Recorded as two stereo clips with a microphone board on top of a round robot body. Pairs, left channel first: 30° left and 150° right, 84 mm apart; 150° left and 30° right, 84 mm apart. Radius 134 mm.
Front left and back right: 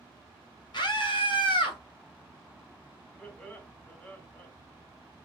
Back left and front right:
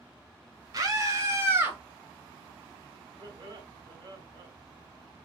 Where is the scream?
10° left, 2.5 m; by 1.8 s 35° left, 2.5 m.